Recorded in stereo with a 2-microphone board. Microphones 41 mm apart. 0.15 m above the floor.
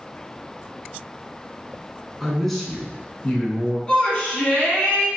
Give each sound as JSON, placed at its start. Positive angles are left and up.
{"t": 2.2, "sound": "a man speaking", "side_deg": 0, "distance_m": 1.2}
{"t": 3.9, "sound": "a shout", "side_deg": 20, "distance_m": 1.1}